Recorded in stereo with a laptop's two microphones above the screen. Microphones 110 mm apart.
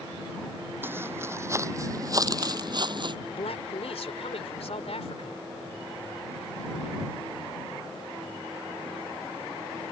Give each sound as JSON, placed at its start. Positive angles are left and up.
{"t": 0.8, "sound": "footsteps", "side_deg": -20}
{"t": 3.3, "sound": "a man speaking", "side_deg": 75}